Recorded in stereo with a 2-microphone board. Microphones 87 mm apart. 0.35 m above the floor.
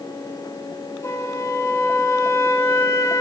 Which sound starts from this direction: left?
A flute, at 1.0 s.